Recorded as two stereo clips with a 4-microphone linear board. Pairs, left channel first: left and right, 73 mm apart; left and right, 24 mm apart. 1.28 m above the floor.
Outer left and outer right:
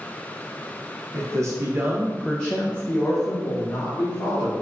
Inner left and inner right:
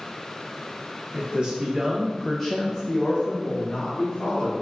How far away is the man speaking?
About 0.7 m.